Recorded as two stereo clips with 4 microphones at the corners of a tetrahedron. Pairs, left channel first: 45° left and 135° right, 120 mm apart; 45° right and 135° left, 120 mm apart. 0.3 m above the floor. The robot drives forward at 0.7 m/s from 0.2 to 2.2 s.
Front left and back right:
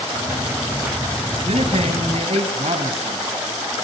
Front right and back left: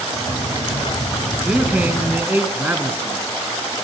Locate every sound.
1.4 s a man speaking: 145° right, 2.5 m; by 3.2 s 155° right, 2.5 m